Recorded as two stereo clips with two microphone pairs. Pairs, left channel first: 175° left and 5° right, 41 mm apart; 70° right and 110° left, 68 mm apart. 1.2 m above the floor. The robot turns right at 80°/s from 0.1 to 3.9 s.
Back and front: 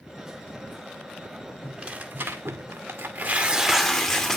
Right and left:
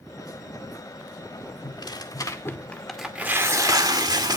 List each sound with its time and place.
1.6 s tearing paper: 85° right, 2.0 m; by 4.4 s 95° left, 2.0 m